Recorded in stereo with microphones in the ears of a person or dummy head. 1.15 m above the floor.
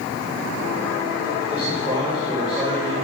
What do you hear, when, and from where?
1.5 s a man speaking: 15° right (ahead or behind), 3 m